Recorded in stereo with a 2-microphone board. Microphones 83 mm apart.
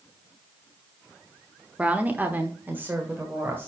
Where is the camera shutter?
I don't hear a camera shutter.